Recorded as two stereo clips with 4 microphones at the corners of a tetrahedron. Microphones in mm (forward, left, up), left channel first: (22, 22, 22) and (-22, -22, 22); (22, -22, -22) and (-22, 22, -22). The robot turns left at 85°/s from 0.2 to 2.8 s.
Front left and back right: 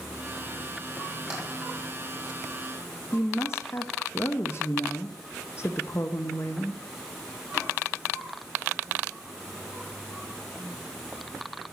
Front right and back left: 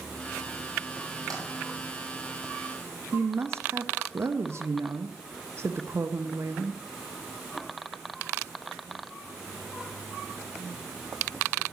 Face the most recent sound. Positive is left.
turn(degrees=90)